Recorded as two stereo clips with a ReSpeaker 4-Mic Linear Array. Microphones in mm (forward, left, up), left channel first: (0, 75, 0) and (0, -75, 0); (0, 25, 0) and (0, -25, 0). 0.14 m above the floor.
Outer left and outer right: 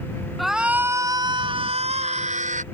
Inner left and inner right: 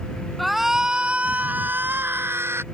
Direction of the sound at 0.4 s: Centre (ahead or behind).